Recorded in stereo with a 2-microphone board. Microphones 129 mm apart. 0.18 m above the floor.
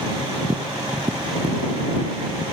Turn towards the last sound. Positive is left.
turn(degrees=-35)  # may be behind; listen again after turning